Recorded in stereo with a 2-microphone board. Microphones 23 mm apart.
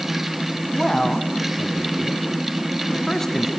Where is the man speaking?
15° left (ahead or behind), 1.6 m.